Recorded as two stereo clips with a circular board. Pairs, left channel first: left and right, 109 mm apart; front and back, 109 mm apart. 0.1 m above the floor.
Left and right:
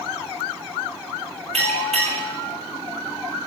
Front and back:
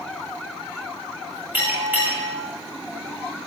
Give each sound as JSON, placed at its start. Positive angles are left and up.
{"t": 1.5, "sound": "a bell", "azimuth_deg": -105, "distance_m": 7.5}